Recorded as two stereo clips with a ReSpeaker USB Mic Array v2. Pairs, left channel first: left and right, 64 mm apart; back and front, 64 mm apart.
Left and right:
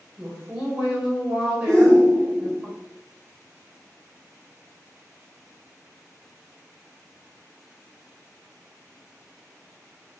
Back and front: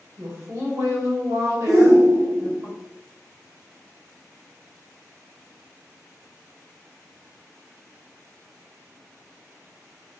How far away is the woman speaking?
About 1.9 m.